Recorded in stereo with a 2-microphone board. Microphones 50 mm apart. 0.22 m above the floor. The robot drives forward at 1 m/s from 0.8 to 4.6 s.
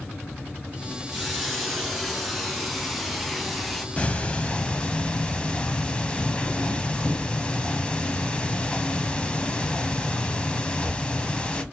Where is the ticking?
25° left (ahead or behind), 1.0 m; by 11.6 s 20° left (ahead or behind), 1.2 m.